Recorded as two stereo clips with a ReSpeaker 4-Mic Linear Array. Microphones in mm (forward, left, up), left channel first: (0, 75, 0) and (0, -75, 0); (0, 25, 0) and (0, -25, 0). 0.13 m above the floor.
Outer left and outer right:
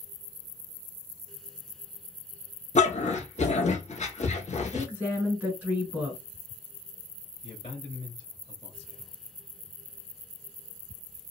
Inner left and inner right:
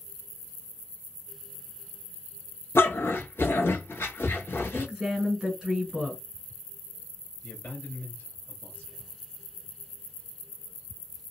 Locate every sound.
2.8 s a dog barking: 50° left (ahead or behind), 0.9 m
4.7 s a woman speaking: 15° right (ahead or behind), 1.6 m
7.4 s a man speaking: 40° left (ahead or behind), 2 m